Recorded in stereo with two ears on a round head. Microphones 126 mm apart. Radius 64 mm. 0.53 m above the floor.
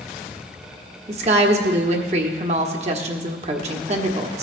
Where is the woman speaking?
50° right (ahead or behind), 1.2 m.